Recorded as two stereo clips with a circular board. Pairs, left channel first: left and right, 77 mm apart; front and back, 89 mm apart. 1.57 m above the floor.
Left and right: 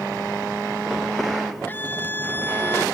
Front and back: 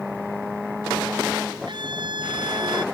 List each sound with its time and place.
1.7 s a scream: 155° left; by 2.9 s 150° left